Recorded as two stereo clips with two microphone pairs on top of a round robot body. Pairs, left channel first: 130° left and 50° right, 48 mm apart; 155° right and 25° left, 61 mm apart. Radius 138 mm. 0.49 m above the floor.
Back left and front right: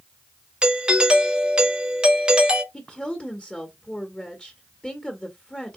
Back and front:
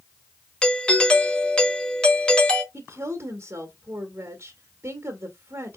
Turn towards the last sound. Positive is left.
turn(degrees=65)